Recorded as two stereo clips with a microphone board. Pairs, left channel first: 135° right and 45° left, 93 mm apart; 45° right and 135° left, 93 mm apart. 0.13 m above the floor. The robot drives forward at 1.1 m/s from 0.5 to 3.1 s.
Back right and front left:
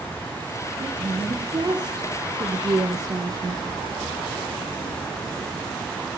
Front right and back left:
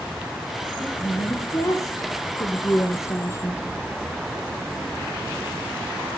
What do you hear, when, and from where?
0.8 s a woman speaking: 5° left, 4.5 m; by 3.6 s 10° left, 2 m